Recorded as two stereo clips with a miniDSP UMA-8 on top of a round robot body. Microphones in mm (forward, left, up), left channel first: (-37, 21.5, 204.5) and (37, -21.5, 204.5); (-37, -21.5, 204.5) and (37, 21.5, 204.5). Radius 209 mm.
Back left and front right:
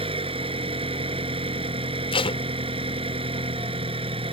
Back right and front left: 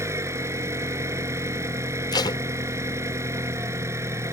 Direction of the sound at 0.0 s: 30° right.